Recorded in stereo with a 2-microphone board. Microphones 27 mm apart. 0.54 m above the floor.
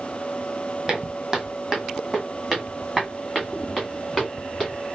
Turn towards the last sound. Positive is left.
turn(degrees=0)  # may be behind; listen again after turning